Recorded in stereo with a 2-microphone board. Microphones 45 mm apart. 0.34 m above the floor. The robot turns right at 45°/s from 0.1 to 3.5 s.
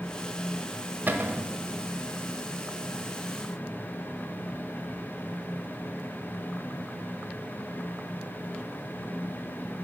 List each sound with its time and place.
1.1 s a cupboard door: 45° right (ahead or behind), 0.5 m; by 1.5 s 50° right (ahead or behind), 0.5 m